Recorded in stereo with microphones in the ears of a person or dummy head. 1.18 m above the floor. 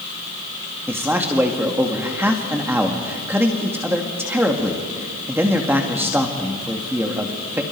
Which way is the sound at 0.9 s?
5° right (ahead or behind).